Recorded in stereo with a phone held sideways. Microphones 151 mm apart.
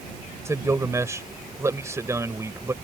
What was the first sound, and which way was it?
A man speaking, 20° right (ahead or behind).